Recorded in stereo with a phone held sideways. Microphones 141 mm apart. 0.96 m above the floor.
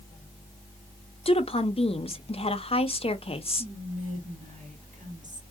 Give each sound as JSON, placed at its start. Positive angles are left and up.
{"t": 1.2, "sound": "a woman speaking", "side_deg": 45, "distance_m": 0.7}
{"t": 3.6, "sound": "whispering", "side_deg": -65, "distance_m": 1.5}